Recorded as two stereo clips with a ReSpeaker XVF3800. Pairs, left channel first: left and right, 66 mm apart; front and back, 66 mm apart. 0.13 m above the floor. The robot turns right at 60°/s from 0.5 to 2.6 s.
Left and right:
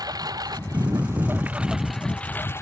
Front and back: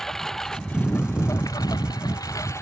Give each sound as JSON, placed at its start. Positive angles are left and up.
{"t": 0.0, "sound": "a lawn mower", "azimuth_deg": -85}